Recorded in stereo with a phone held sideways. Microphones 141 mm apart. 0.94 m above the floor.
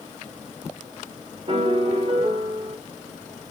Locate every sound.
1.5 s a piano: 40° right (ahead or behind), 0.8 m